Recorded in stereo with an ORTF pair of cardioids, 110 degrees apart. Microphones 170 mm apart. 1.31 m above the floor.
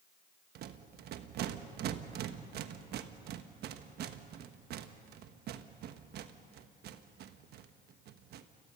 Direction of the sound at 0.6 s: 70° right.